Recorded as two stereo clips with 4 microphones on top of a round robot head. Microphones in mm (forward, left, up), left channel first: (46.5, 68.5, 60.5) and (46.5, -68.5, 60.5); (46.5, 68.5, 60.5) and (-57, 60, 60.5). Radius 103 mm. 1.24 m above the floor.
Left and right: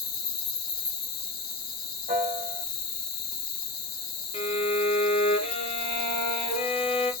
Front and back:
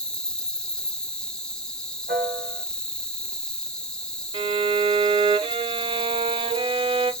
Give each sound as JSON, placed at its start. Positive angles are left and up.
{"t": 0.0, "sound": "an insect", "azimuth_deg": 90, "distance_m": 0.8}
{"t": 2.1, "sound": "a piano", "azimuth_deg": -140, "distance_m": 2.0}
{"t": 4.3, "sound": "a violin", "azimuth_deg": 145, "distance_m": 0.5}